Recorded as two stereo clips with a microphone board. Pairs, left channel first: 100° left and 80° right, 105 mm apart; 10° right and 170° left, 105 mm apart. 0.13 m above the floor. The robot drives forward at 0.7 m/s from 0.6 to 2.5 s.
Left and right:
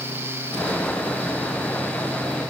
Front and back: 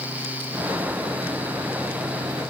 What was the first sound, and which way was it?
Only background noise.